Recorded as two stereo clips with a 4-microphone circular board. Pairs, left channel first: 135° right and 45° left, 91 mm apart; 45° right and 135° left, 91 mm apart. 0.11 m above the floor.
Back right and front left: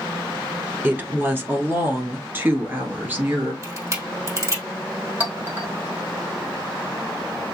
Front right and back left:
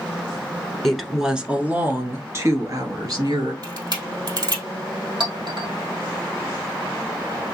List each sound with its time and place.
0.8 s a woman speaking: 30° left, 1.1 m; by 3.5 s 110° left, 1.8 m
3.6 s a camera shutter: 100° left, 2.5 m
5.2 s a clink: 115° left, 1.9 m